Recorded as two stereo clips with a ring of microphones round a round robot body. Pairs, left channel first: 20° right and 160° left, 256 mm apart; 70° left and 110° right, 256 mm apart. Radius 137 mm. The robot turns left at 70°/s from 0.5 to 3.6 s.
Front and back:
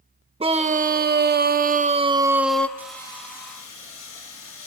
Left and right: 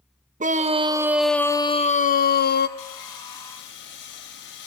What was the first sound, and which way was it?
A scream, 150° right.